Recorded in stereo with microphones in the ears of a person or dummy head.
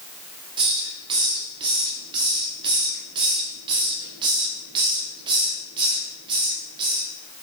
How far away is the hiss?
About 1.1 m.